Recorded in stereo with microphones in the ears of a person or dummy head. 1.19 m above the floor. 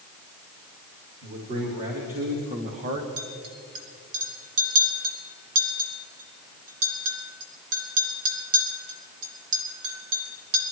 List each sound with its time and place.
1.2 s a man speaking: 40° right (ahead or behind), 4 m; by 3.1 s 35° right (ahead or behind), 1.2 m
3.2 s a clink: 75° right (ahead or behind), 2 m